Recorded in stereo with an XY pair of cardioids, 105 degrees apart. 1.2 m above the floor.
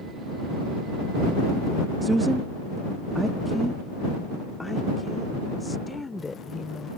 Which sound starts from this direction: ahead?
A woman speaking, at 2.0 s.